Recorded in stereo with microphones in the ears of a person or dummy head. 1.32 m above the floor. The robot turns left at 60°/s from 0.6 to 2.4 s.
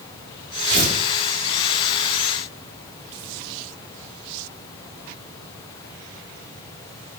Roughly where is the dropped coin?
No dropped coin in this recording.